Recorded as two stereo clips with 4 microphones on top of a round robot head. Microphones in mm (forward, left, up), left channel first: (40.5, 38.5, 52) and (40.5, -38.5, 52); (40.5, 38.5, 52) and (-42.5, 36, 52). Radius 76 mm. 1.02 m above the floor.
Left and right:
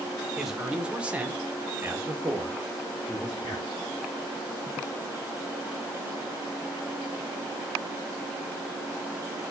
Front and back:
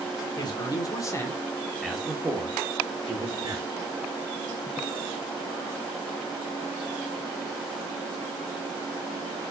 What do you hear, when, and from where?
0.4 s a man speaking: 5° right, 1.4 m; by 3.6 s 155° right, 1.7 m